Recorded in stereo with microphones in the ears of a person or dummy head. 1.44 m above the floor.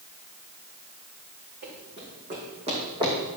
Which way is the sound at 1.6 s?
45° right (ahead or behind).